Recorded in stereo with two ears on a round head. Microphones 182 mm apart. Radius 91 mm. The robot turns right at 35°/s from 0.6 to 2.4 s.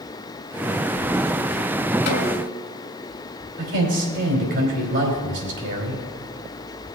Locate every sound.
2.1 s a snare drum: 55° left (ahead or behind), 1.5 m; by 2.7 s 40° left (ahead or behind), 1.5 m
3.6 s a man speaking: 60° right (ahead or behind), 3 m